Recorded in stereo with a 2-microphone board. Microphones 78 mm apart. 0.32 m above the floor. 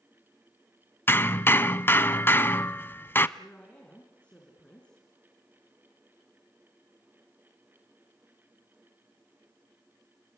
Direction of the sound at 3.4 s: 15° left (ahead or behind).